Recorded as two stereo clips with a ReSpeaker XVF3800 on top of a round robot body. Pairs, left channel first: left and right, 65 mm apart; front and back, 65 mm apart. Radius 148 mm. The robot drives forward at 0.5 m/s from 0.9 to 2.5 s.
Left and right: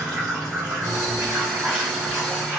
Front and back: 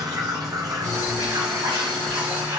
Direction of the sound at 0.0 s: 160° right.